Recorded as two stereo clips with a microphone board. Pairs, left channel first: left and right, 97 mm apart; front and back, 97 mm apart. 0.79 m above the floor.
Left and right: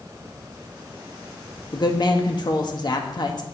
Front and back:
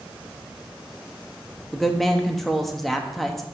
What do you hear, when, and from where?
1.7 s a woman speaking: 85° left, 1.1 m